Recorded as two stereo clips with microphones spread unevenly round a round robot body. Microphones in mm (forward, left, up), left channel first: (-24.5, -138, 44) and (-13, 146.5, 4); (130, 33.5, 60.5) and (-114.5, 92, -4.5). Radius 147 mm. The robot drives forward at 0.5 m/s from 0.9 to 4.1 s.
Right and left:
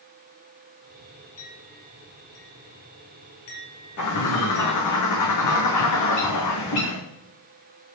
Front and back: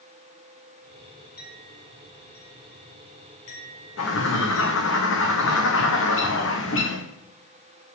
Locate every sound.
1.4 s a clink: 50° right, 6.5 m; by 4.9 s 60° right, 6 m
4.0 s a bird: 60° right, 4.5 m